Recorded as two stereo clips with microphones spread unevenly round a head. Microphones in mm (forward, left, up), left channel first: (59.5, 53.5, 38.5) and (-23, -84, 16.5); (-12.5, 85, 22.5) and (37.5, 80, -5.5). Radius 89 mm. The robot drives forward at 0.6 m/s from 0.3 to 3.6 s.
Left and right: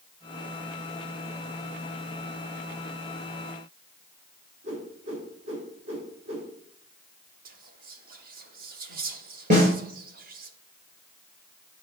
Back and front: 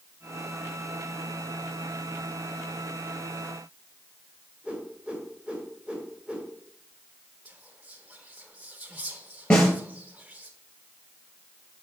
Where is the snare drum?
175° right, 4 m.